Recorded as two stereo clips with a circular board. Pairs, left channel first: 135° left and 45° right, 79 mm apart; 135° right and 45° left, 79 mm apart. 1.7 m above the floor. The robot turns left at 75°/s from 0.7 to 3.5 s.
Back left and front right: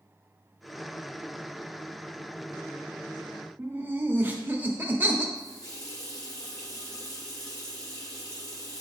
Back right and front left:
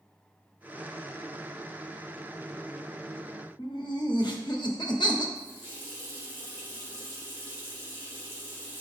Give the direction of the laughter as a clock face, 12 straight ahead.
4 o'clock.